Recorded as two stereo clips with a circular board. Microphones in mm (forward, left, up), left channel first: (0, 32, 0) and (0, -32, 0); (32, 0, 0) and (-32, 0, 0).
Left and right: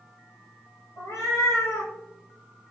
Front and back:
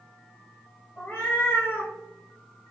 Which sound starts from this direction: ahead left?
A cat meowing, at 1.0 s.